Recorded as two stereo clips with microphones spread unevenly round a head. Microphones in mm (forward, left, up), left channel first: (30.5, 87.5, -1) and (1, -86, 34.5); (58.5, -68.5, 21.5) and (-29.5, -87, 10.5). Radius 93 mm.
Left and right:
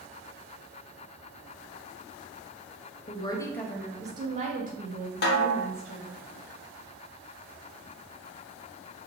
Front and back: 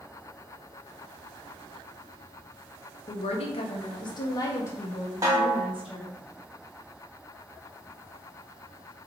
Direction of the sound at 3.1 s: 25° left.